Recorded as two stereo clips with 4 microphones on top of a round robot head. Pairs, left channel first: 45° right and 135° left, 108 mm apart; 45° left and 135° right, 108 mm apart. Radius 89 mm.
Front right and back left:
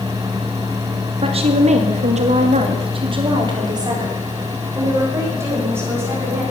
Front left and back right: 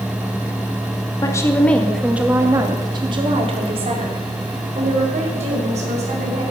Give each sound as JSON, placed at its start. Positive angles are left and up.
{"t": 1.2, "sound": "a woman speaking", "azimuth_deg": 100, "distance_m": 2.0}